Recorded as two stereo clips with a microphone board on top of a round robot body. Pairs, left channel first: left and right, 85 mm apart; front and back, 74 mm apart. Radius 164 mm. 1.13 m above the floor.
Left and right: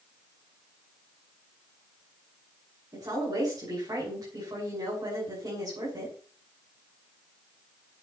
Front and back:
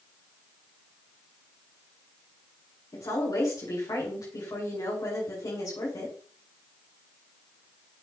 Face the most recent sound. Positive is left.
turn(degrees=-40)